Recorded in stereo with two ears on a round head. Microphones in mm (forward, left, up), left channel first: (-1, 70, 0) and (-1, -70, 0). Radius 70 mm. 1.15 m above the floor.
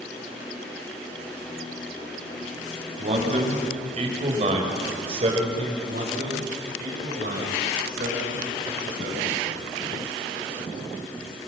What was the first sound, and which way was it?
A man speaking, 50° right (ahead or behind).